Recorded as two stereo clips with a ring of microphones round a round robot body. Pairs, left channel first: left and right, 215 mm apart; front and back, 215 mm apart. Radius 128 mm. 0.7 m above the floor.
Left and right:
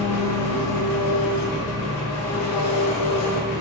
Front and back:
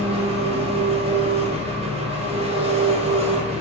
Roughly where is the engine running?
Behind left.